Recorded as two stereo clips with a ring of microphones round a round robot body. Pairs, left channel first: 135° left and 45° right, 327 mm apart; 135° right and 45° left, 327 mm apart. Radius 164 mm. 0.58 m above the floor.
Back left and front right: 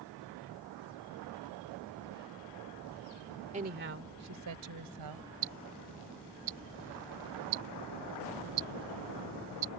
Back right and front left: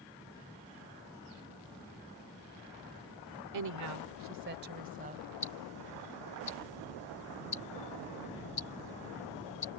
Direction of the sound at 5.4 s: 65° right.